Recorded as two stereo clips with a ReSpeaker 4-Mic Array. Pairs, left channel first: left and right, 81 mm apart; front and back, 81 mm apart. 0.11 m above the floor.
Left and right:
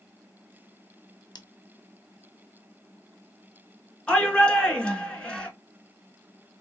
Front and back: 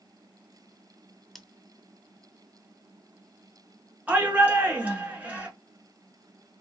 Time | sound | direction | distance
1.4 | scissors | 90° left | 0.5 m
4.1 | a shout | 150° left | 1.1 m